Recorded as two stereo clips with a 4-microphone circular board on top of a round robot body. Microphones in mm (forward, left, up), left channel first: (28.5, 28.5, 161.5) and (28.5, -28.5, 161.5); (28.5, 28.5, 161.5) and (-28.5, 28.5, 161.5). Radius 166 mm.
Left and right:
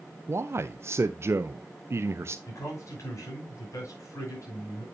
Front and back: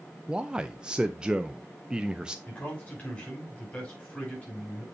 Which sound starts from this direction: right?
A man speaking, at 0.3 s.